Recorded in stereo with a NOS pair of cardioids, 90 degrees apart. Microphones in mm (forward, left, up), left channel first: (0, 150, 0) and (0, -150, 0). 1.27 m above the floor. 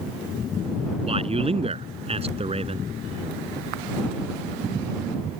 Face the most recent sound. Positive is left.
turn(degrees=-20)